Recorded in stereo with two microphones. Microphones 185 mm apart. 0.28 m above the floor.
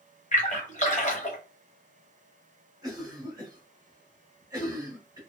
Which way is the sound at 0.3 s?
40° left (ahead or behind).